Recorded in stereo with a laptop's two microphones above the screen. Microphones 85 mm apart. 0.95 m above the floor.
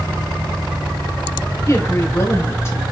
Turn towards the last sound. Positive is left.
turn(degrees=35)  # may be behind; listen again after turning